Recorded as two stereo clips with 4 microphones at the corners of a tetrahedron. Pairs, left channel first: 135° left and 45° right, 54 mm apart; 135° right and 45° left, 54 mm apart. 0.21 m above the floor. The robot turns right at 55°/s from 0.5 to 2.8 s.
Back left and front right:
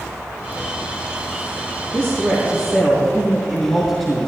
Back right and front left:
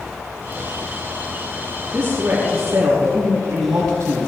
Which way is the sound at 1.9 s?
20° right.